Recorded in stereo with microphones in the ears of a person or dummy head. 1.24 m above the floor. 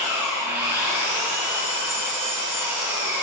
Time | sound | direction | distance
0.0 | an engine running | 10° right (ahead or behind) | 2.5 m